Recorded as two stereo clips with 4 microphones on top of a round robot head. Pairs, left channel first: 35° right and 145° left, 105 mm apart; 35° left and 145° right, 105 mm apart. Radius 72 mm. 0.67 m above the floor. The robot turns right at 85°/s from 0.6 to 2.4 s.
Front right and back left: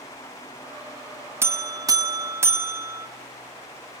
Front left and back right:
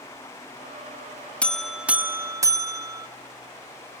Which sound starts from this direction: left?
A buzzer, at 1.4 s.